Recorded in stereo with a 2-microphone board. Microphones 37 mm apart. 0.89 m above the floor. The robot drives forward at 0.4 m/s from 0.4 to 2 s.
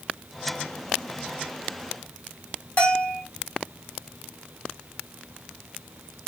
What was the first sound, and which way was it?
A bell, 45° left (ahead or behind).